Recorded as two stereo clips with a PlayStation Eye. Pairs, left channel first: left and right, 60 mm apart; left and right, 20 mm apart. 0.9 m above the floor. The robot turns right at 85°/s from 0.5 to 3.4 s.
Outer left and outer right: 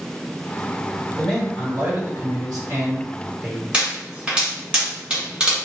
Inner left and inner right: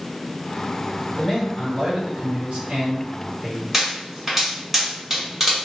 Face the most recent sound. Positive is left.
turn(degrees=-15)  # may be behind; listen again after turning